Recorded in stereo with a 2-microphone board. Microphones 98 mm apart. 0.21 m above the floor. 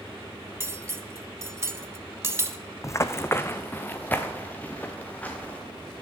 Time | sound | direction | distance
0.6 | cutlery clinking | 30° right (ahead or behind) | 0.7 m
2.8 | running footsteps | 30° left (ahead or behind) | 0.5 m